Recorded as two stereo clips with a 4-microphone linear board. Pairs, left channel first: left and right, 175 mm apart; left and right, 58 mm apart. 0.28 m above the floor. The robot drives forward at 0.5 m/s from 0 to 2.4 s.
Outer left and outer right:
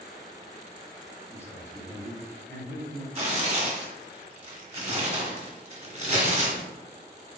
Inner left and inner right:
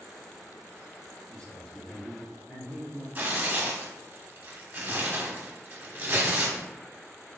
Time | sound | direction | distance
1.3 | a man speaking | 15° left (ahead or behind) | 1.4 m
3.1 | tearing paper | 40° right (ahead or behind) | 1.2 m